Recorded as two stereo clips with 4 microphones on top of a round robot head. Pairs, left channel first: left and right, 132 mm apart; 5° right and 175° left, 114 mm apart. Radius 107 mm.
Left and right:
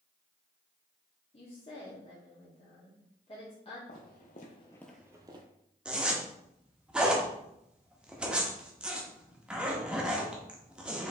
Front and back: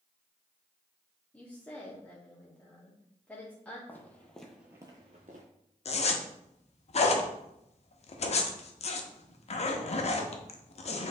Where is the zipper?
5° right, 0.7 m.